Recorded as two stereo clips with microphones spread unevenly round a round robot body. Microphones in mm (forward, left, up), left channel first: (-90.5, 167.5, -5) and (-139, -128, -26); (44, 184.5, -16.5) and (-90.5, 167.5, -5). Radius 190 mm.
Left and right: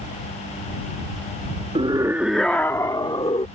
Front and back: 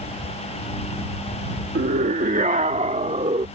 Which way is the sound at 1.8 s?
165° right.